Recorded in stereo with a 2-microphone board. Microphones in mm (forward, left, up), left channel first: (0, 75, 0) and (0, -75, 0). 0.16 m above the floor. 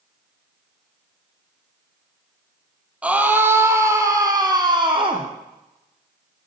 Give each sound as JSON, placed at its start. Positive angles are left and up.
{"t": 3.0, "sound": "a scream", "side_deg": -10, "distance_m": 4.5}